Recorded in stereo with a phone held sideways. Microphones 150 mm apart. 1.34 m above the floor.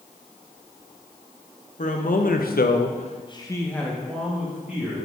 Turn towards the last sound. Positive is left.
turn(degrees=-10)  # may be behind; listen again after turning